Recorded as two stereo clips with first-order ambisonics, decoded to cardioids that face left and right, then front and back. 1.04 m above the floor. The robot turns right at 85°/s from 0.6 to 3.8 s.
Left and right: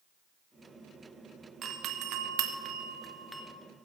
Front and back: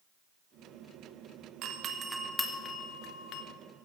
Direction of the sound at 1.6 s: 150° right.